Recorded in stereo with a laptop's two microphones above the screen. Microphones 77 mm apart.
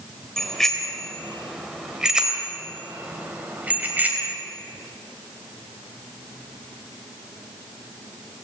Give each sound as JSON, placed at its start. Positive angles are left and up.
{"t": 0.4, "sound": "a bicycle bell", "side_deg": 5, "distance_m": 3.5}